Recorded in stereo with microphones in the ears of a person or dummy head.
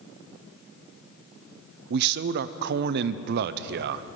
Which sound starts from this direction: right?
A man speaking, at 1.9 s.